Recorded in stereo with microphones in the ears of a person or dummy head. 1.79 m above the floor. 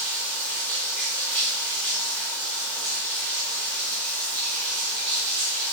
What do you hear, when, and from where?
0.0 s running water: 10° left (ahead or behind), 1.0 m